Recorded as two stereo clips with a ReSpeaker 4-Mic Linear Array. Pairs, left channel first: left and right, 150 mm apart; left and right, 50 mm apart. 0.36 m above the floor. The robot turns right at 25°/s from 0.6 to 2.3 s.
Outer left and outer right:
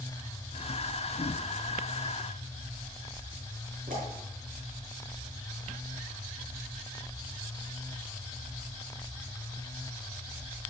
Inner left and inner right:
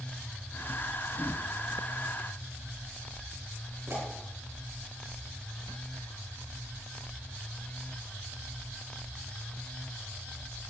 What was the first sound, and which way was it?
A pop, 70° right (ahead or behind).